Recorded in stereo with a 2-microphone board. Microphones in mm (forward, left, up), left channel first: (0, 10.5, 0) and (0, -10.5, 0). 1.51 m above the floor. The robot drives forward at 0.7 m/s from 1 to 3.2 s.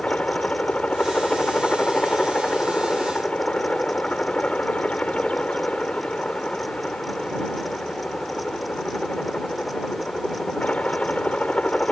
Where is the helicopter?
75° left (ahead or behind); by 11.9 s 80° left.